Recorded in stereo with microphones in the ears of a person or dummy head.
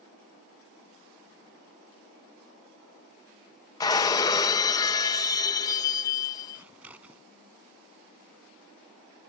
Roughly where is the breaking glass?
Centre.